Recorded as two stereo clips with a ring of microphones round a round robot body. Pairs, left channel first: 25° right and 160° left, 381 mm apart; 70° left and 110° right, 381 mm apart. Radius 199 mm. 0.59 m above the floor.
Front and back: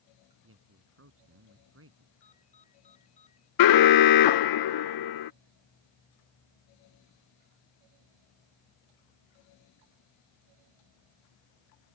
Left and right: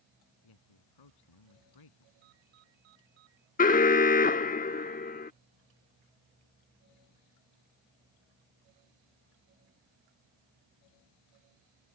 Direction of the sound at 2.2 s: 95° right.